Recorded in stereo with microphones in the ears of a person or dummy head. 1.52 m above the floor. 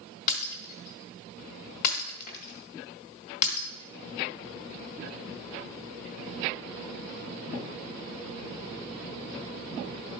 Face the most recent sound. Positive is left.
turn(degrees=45)  # may be behind; listen again after turning